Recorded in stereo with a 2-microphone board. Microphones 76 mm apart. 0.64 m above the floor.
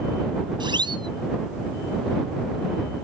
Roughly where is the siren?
Right.